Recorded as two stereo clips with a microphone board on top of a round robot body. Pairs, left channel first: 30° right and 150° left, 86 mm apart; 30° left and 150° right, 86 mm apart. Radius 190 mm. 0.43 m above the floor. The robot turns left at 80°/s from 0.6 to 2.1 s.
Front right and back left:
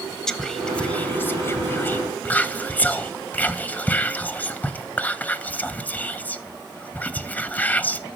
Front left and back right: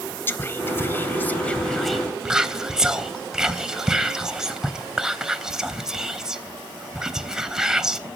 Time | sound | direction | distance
0.3 | whispering | 45° left | 0.8 m